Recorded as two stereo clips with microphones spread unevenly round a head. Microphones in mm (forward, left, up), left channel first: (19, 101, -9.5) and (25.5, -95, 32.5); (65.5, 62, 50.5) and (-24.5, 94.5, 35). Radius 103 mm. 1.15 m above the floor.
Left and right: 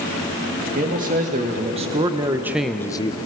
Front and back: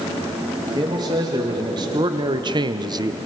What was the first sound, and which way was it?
A man speaking, 145° right.